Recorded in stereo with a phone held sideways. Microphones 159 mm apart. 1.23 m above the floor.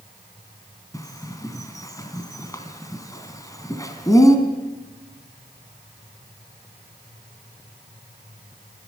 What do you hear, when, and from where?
0.9 s a bird: 20° left (ahead or behind), 2.5 m